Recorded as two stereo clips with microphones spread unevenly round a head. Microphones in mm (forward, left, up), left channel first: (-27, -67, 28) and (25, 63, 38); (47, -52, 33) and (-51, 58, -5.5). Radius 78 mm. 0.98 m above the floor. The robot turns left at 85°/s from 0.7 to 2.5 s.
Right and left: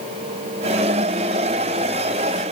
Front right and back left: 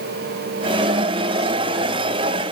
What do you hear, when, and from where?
Only background noise.